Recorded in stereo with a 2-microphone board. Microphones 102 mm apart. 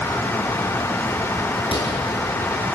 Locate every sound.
1.6 s a door slam: 55° left (ahead or behind), 8 m